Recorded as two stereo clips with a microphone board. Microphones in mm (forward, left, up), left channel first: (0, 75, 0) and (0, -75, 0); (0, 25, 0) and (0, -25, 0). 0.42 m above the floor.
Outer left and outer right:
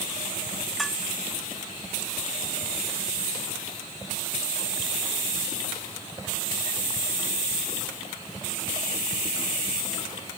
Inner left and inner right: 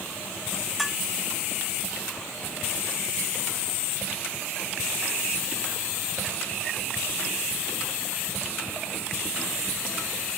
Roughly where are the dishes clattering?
Centre.